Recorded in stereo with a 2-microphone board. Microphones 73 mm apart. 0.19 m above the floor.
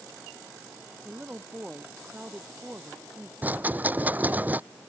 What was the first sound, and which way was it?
A woman speaking, 20° right (ahead or behind).